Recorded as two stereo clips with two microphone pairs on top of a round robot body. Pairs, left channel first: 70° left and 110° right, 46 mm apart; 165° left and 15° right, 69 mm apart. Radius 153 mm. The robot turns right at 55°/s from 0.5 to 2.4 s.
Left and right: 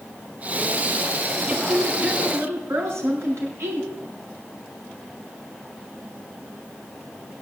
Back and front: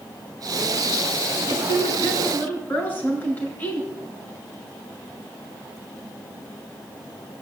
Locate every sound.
1.5 s a woman speaking: straight behind, 7 m; by 3.9 s 130° right, 7 m